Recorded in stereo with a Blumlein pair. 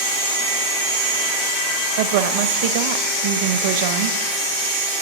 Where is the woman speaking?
50° right, 1.0 m.